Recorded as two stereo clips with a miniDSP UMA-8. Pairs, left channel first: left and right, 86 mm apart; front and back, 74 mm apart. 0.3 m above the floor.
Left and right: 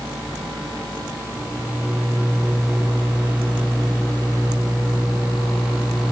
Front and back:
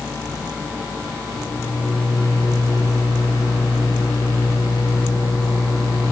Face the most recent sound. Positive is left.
turn(degrees=-10)